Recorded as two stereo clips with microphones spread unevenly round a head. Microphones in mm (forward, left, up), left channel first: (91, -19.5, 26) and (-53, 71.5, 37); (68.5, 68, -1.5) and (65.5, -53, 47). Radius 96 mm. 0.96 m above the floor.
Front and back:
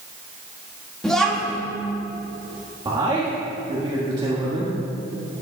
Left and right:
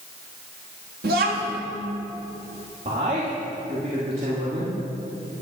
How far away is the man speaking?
About 1.4 m.